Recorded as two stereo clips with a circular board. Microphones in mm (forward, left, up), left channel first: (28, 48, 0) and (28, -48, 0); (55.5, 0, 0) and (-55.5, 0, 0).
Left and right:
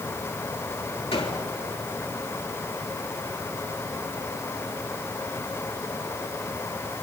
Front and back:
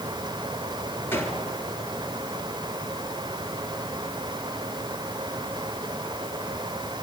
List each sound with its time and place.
1.1 s a gunshot: 70° left, 3 m